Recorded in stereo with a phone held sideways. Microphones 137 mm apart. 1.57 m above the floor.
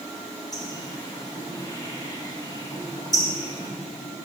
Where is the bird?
25° left (ahead or behind), 1.4 m.